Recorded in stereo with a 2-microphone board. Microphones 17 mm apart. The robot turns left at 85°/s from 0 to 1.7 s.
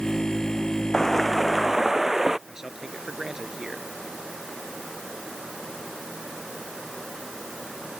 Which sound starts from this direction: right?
A man speaking, at 2.5 s.